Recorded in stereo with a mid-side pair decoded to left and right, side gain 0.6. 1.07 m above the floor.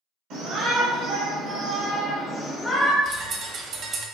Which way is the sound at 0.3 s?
65° right.